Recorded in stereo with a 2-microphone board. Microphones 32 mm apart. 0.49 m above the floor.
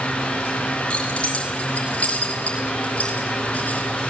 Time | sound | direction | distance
0.9 | keys jangling | 35° left (ahead or behind) | 5 m